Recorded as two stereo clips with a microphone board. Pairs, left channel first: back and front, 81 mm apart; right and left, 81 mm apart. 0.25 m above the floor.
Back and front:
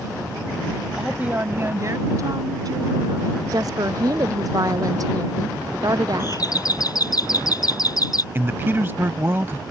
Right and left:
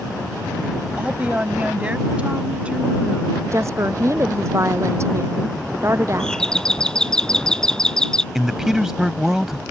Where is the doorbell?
170° right.